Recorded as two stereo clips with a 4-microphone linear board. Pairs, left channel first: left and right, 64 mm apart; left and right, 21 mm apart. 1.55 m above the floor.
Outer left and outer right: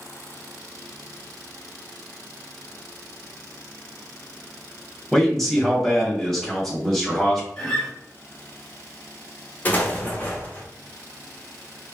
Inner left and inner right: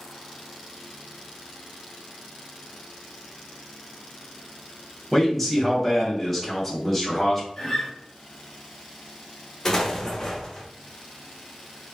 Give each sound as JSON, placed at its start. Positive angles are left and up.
{"t": 5.1, "sound": "a man speaking", "side_deg": 5, "distance_m": 1.3}
{"t": 7.6, "sound": "a guitar", "side_deg": 10, "distance_m": 1.1}
{"t": 9.7, "sound": "an explosion", "side_deg": 25, "distance_m": 0.8}